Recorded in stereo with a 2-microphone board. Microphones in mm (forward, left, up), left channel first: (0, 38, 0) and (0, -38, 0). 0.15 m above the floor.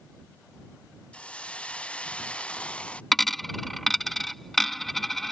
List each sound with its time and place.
1.1 s a hiss: 15° left (ahead or behind)
3.1 s a dropped coin: 5° left (ahead or behind)